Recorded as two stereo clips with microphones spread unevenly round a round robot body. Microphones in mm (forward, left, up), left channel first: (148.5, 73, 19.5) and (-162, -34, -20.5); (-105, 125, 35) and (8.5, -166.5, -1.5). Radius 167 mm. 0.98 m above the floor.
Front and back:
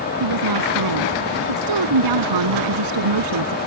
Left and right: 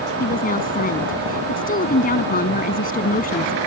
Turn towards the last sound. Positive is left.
turn(degrees=175)